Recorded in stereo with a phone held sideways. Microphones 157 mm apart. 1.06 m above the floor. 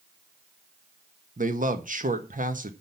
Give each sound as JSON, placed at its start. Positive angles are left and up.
{"t": 1.4, "sound": "a man speaking", "side_deg": -60, "distance_m": 1.3}